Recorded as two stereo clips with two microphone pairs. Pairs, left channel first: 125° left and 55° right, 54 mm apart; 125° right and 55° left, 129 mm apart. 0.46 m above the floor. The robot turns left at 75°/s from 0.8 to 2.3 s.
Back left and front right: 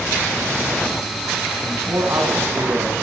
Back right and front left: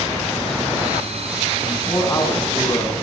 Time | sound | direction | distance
1.6 | a man speaking | 20° right | 4 m